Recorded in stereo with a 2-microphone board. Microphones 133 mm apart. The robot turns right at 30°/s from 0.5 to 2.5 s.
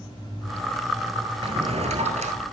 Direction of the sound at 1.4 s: 45° right (ahead or behind).